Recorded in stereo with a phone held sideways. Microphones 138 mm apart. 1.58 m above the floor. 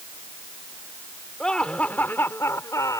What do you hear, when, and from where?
1.4 s laughter: 5° left (ahead or behind); by 3.0 s 25° left (ahead or behind)